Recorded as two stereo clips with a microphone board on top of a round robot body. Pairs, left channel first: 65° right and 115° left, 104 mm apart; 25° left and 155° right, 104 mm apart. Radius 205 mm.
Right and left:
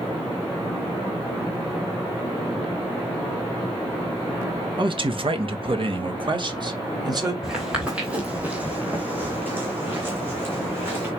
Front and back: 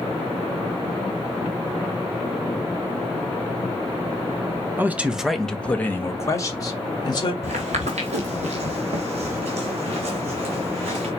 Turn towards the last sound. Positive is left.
turn(degrees=180)